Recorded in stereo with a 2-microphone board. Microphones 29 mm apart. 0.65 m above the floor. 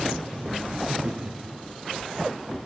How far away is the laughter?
About 1.2 m.